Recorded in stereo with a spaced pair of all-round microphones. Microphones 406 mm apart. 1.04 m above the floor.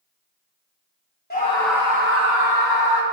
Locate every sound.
1.3 s a scream: 25° left (ahead or behind), 1.3 m; by 3.0 s 65° right (ahead or behind), 1.9 m